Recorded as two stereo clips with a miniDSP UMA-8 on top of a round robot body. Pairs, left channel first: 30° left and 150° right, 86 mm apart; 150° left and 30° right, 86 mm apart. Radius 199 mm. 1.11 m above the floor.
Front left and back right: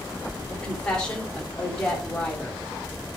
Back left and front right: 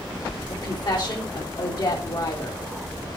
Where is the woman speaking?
110° left, 3.5 m.